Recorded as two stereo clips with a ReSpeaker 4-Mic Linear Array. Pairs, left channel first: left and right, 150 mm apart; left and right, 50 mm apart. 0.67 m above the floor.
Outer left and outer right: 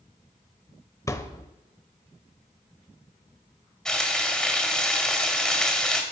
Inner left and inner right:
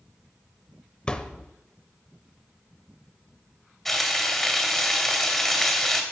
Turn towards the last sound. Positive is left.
turn(degrees=5)  # may be behind; listen again after turning